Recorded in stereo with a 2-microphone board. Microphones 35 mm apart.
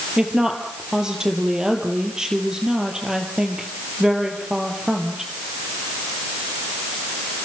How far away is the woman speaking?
About 4 m.